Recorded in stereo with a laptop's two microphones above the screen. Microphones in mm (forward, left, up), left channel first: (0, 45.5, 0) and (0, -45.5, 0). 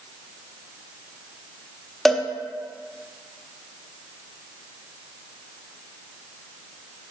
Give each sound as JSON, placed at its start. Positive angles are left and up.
{"t": 2.0, "sound": "a cowbell", "side_deg": 5, "distance_m": 0.7}